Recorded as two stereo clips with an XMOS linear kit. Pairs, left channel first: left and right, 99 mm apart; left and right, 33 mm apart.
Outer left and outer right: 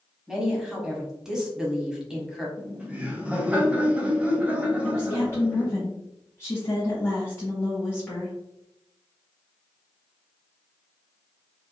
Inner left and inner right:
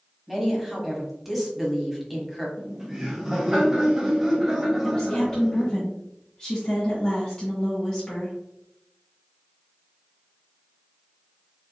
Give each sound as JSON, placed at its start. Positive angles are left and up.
{"t": 0.3, "sound": "a woman speaking", "side_deg": -5, "distance_m": 1.2}
{"t": 2.6, "sound": "laughter", "side_deg": -15, "distance_m": 1.0}
{"t": 4.8, "sound": "a woman speaking", "side_deg": 25, "distance_m": 1.2}